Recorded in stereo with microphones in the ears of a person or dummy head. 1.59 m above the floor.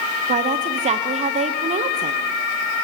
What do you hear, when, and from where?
0.3 s a woman speaking: 25° right (ahead or behind), 0.8 m